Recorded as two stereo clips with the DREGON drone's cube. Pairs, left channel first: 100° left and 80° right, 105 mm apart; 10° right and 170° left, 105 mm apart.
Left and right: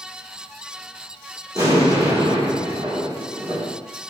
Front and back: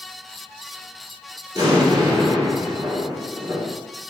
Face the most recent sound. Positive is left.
turn(degrees=-135)